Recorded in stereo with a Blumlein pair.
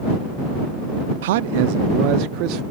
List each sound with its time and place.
1.2 s a man speaking: 55° right; by 2.6 s 40° right